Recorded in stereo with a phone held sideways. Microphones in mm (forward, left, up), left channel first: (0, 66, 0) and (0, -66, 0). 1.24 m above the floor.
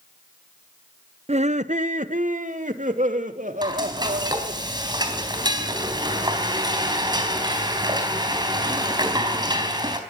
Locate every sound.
1.3 s laughter: 55° right (ahead or behind), 0.6 m; by 4.6 s 80° right, 3.5 m
3.6 s frying: 35° right (ahead or behind), 4 m